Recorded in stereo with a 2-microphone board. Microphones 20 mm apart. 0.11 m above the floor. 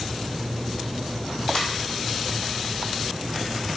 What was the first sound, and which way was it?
A ringtone, 60° left (ahead or behind).